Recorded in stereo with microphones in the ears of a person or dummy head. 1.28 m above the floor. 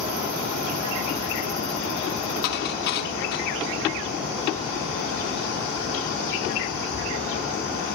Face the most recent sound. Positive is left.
turn(degrees=60)  # may be behind; listen again after turning